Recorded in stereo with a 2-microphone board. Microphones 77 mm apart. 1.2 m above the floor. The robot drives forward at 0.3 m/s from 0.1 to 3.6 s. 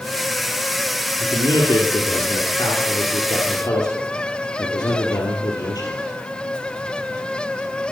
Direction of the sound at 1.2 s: 65° left (ahead or behind).